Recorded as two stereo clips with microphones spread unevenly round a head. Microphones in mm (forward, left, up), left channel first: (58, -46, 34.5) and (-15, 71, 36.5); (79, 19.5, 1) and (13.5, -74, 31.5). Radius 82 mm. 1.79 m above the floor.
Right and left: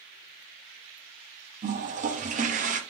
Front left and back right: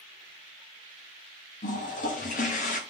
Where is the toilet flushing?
90° left, 1.1 m.